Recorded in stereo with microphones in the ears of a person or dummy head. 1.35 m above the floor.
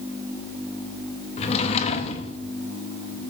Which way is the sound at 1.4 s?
35° left (ahead or behind).